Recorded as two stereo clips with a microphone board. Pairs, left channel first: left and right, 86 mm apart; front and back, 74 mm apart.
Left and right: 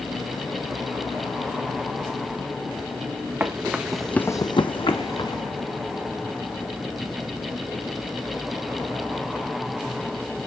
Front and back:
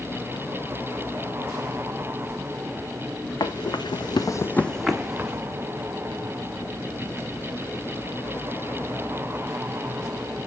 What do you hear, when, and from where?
3.4 s running footsteps: 25° right, 1.0 m; by 5.4 s 110° left, 1.2 m